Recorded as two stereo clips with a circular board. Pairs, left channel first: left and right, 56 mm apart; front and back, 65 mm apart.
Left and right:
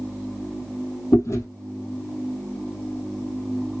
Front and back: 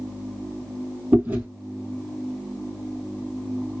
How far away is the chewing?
About 1.3 m.